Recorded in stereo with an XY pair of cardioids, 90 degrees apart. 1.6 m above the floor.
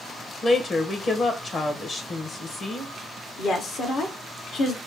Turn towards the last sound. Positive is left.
turn(degrees=70)